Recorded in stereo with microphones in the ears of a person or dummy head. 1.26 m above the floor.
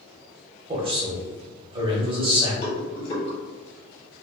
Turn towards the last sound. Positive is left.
turn(degrees=35)  # may be behind; listen again after turning